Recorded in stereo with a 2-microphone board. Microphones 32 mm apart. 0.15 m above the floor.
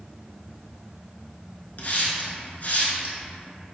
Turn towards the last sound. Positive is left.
turn(degrees=55)  # may be behind; listen again after turning